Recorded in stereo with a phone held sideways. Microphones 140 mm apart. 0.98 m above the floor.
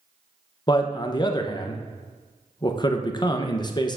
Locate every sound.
0.7 s a man speaking: 30° left (ahead or behind), 0.6 m